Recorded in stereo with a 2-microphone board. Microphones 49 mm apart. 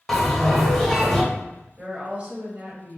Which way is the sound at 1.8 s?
25° right (ahead or behind).